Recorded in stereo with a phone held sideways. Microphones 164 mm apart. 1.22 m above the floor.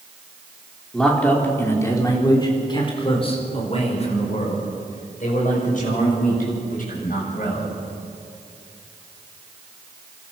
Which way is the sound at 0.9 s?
5° left (ahead or behind).